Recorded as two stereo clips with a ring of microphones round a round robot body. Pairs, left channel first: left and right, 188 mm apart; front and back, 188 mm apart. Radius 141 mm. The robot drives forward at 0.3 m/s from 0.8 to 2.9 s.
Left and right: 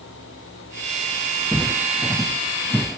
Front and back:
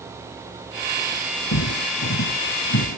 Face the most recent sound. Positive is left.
turn(degrees=0)